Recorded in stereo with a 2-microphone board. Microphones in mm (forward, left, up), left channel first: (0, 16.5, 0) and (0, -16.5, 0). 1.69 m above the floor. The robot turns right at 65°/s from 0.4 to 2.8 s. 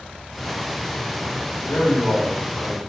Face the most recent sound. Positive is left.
turn(degrees=165)